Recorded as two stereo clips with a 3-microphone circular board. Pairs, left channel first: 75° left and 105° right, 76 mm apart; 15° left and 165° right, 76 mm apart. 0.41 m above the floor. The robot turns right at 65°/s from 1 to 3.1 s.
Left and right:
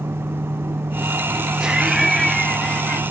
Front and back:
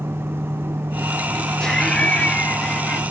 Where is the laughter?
50° right, 0.8 m; by 3.0 s 40° left, 0.8 m.